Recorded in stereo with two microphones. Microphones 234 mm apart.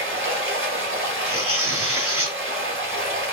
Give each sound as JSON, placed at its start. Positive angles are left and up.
{"t": 0.0, "sound": "running water", "side_deg": -65, "distance_m": 1.0}
{"t": 1.3, "sound": "tearing paper", "side_deg": -80, "distance_m": 2.5}